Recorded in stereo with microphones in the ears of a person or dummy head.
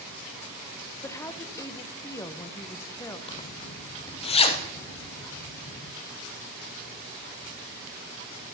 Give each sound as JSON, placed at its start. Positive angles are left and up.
{"t": 1.0, "sound": "a woman speaking", "side_deg": 15, "distance_m": 0.7}
{"t": 3.3, "sound": "a zipper", "side_deg": 35, "distance_m": 0.8}